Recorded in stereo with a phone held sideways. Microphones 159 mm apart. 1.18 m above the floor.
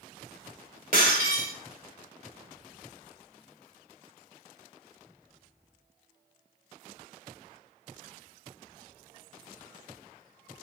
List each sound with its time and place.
0.9 s breaking glass: 60° right (ahead or behind), 2 m